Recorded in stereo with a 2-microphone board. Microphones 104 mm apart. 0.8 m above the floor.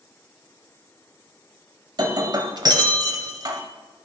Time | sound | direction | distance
2.0 | breaking glass | 40° right (ahead or behind) | 1.0 m